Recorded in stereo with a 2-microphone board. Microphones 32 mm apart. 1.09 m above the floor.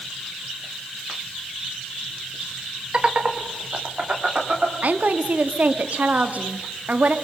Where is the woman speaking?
55° right (ahead or behind), 1.6 m.